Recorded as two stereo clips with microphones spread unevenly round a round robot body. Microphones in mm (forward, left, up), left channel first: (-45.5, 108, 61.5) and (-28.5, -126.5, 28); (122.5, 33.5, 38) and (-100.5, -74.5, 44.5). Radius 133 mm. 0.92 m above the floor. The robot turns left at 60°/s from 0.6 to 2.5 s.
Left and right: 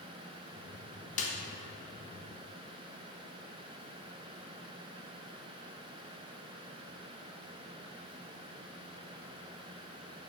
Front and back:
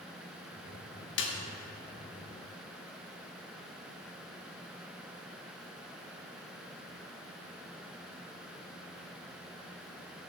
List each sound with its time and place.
1.2 s a snare drum: 40° left, 1.2 m; by 1.3 s 30° left, 1.2 m